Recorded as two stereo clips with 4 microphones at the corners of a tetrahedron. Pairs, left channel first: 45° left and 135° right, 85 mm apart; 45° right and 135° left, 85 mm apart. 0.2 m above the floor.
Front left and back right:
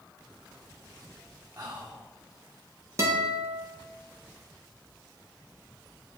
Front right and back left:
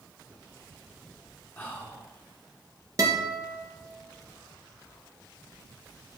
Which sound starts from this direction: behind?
A guitar, at 3.0 s.